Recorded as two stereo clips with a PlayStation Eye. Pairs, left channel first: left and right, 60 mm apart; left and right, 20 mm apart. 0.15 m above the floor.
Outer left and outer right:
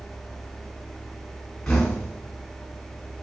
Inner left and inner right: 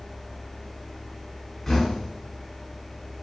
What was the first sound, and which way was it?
Knocking, 10° left (ahead or behind).